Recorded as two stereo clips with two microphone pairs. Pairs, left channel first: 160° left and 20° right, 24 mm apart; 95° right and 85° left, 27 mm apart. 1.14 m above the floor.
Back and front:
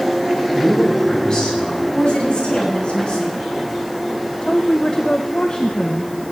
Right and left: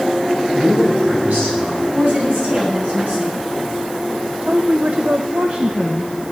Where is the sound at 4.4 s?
105° left, 0.9 m.